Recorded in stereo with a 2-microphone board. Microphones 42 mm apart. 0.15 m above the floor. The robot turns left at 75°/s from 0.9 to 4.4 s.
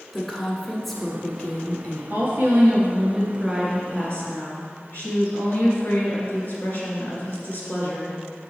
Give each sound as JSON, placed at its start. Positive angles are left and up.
{"t": 0.1, "sound": "a woman speaking", "azimuth_deg": 175, "distance_m": 1.2}
{"t": 2.1, "sound": "a woman speaking", "azimuth_deg": -75, "distance_m": 2.5}